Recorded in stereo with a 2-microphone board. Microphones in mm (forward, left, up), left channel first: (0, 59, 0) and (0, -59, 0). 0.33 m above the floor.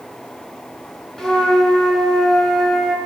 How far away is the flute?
About 1.9 m.